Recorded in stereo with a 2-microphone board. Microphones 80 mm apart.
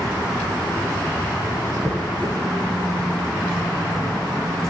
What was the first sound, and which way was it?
A dropped coin, 5° left (ahead or behind).